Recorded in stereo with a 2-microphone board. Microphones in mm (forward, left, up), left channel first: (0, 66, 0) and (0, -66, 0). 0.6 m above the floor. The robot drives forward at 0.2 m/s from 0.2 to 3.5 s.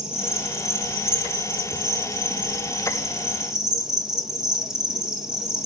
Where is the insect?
5° right (ahead or behind), 1.9 m.